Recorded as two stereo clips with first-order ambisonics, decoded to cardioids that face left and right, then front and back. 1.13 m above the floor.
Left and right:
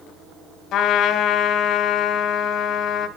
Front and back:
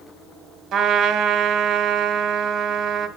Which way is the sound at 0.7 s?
135° left.